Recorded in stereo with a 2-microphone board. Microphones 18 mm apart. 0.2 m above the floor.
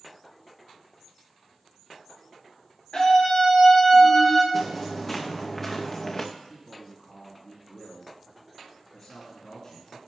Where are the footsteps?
15° left (ahead or behind), 3 m; by 6.2 s 30° left (ahead or behind), 1.4 m.